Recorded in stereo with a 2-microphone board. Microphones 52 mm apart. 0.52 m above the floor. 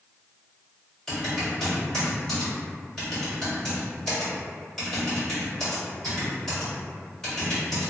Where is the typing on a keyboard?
10° left (ahead or behind), 1.6 m.